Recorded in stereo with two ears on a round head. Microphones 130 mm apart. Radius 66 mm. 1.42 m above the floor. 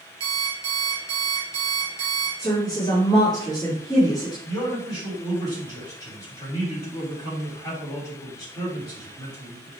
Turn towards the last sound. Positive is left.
turn(degrees=25)  # may be behind; listen again after turning